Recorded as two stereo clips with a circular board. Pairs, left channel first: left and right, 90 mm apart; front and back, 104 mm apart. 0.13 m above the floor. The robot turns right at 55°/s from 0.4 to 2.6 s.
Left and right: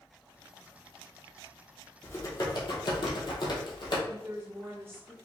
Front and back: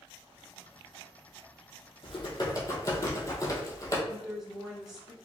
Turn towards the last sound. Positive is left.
turn(degrees=-100)